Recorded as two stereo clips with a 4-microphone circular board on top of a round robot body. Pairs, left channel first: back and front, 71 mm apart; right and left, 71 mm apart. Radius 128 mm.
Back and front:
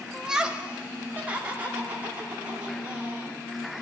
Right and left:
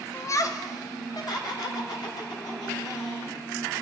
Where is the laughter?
80° right, 0.9 m; by 3.4 s 65° right, 5 m.